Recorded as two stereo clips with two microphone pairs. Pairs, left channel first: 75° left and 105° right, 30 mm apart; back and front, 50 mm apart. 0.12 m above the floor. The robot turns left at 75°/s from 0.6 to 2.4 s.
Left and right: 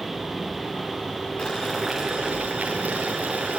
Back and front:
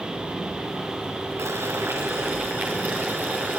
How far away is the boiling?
About 4.5 m.